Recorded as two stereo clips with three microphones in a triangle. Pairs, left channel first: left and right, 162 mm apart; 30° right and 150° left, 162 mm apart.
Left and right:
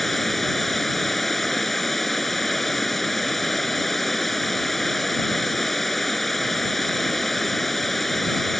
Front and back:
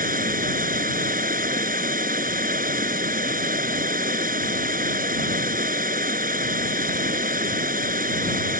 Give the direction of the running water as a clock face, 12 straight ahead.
6 o'clock.